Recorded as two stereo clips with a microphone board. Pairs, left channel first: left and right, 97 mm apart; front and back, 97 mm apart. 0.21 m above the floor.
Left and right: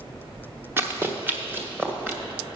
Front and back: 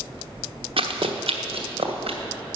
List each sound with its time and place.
0.8 s running footsteps: 160° right, 1.3 m; by 2.2 s 165° right, 2 m